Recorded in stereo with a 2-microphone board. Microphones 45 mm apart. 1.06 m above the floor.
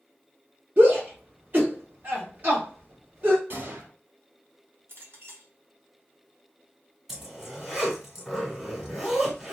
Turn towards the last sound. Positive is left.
turn(degrees=-5)  # may be behind; listen again after turning